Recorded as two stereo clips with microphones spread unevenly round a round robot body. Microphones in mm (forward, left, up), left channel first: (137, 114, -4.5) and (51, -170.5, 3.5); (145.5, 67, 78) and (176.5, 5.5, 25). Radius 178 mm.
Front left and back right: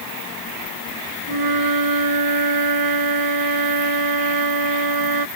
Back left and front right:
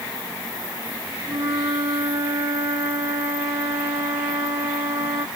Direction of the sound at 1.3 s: 115° right.